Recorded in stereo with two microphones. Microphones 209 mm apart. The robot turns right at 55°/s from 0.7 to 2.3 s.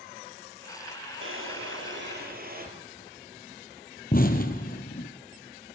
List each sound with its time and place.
1.2 s a drawer: 105° right, 3.5 m; by 2.7 s 45° right, 3.5 m
4.1 s an explosion: 45° left (ahead or behind), 1.8 m